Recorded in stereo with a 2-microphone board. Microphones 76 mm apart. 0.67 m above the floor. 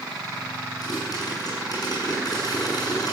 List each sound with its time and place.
0.8 s a pop: 55° left (ahead or behind), 7.5 m